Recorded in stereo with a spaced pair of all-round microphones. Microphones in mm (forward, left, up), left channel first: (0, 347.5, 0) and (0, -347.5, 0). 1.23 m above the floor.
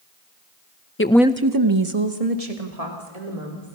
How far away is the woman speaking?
About 0.9 m.